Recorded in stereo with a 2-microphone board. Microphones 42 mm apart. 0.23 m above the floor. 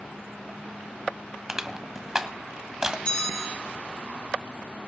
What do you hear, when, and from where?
1.5 s crushing: 15° right (ahead or behind), 1.1 m
3.0 s a bell: 30° left (ahead or behind), 3 m